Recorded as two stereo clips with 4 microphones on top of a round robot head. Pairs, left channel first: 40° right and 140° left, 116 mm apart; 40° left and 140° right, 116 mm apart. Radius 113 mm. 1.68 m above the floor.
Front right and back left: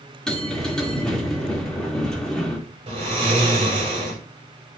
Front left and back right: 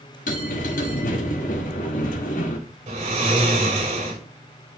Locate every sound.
0.3 s a bell: 45° left, 2 m
2.9 s snoring: 175° right, 5 m